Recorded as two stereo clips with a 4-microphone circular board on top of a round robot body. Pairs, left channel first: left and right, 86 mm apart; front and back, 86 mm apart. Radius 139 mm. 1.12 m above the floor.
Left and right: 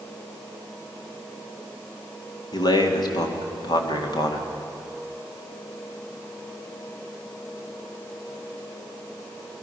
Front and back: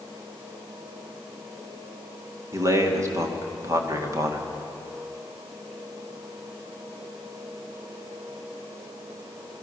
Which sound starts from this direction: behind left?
A man speaking, at 2.5 s.